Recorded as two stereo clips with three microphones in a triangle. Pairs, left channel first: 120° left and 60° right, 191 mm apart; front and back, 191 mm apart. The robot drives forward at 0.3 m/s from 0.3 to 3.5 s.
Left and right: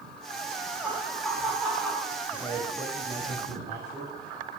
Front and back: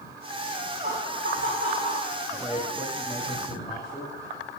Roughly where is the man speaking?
Right.